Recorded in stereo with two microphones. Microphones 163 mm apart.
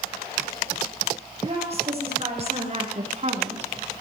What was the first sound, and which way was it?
A woman speaking, 35° right (ahead or behind).